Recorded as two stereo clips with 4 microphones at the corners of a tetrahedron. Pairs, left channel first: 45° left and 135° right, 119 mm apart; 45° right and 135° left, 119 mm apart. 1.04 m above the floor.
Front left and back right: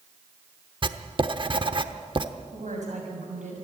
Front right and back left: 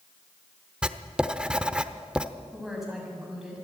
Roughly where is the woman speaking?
Behind right.